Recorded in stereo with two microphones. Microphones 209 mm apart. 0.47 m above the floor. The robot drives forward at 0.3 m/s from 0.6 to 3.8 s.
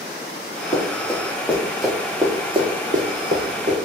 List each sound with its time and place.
0.7 s running footsteps: 15° left (ahead or behind), 2.0 m; by 3.8 s 65° right (ahead or behind), 1.3 m